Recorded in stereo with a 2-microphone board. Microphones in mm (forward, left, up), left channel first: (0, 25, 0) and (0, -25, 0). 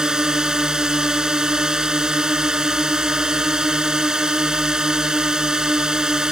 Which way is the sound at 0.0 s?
10° right (ahead or behind).